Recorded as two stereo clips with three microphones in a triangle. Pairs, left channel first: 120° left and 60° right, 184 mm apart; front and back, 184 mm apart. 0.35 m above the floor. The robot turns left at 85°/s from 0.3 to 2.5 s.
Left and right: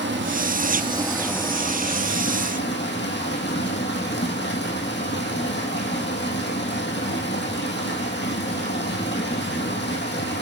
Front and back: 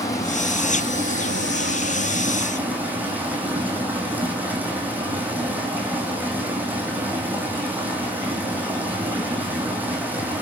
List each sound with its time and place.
0.0 s running water: 75° right, 1.5 m; by 10.4 s 100° left, 1.5 m